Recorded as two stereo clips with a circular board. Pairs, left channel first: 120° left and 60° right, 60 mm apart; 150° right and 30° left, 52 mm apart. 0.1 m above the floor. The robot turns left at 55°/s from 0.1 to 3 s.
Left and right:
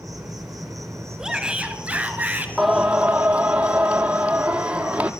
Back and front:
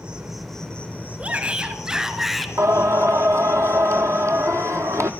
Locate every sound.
0.0 s an insect: 40° right, 1.7 m; by 5.2 s 160° left, 1.7 m
1.2 s a shout: 10° left, 1.2 m; by 2.5 s 60° right, 1.2 m
2.6 s singing: 30° left, 0.8 m; by 5.1 s 10° left, 0.8 m